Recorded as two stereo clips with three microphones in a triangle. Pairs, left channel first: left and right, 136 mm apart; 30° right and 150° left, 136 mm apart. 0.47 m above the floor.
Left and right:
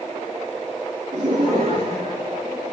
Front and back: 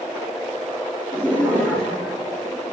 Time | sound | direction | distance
1.1 | laughter | 130° right | 5.5 m